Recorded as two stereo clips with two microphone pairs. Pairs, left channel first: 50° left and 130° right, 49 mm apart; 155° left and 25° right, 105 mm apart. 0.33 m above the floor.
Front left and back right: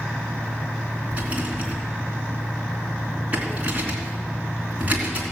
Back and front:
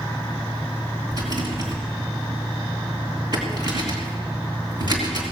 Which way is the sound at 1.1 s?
70° right.